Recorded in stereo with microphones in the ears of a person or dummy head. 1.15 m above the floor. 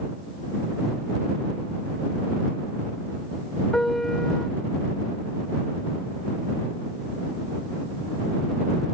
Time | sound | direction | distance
3.7 | a piano | 5° left (ahead or behind) | ?